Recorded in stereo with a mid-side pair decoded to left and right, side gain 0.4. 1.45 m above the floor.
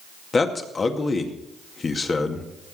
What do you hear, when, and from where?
0.3 s a man speaking: 40° left, 2.0 m